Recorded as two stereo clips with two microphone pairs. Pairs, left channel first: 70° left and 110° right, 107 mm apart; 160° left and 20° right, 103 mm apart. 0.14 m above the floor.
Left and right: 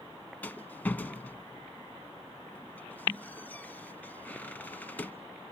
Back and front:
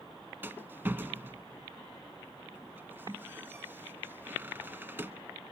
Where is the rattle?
20° left, 0.8 m.